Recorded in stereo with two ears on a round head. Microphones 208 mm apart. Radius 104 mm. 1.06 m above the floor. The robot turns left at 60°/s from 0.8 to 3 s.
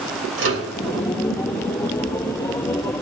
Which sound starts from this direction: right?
A microwave, at 0.4 s.